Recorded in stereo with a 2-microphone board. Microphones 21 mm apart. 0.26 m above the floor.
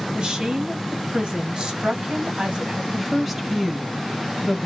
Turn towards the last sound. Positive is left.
turn(degrees=-10)  # may be behind; listen again after turning